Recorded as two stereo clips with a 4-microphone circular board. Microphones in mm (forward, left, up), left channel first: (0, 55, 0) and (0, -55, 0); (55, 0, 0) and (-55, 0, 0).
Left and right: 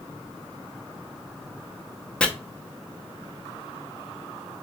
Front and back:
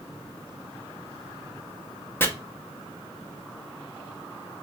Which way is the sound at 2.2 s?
25° left.